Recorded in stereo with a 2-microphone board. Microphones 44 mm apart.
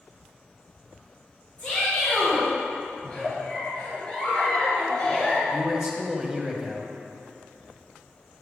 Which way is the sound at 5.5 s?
15° right (ahead or behind).